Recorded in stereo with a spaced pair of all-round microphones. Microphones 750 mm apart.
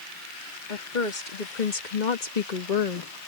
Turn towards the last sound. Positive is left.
turn(degrees=45)  # may be behind; listen again after turning